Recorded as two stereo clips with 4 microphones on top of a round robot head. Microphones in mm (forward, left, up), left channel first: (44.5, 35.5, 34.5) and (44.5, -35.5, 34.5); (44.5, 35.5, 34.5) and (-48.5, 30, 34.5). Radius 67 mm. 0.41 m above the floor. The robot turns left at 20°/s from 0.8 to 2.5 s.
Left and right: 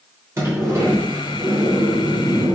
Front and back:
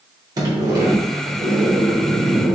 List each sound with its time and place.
0.4 s a sliding door: 140° right, 0.9 m; by 2.5 s 170° right, 0.9 m